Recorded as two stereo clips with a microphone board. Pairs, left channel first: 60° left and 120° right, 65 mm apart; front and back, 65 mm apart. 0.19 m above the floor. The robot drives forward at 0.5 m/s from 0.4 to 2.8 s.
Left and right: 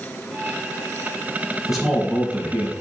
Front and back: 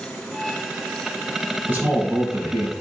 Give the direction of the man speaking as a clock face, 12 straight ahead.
7 o'clock.